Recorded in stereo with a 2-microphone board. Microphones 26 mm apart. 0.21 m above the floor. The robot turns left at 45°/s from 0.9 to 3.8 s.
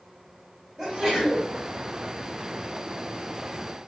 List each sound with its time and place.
0.8 s a sneeze: 15° right (ahead or behind), 1.4 m; by 1.5 s 5° right (ahead or behind), 1.4 m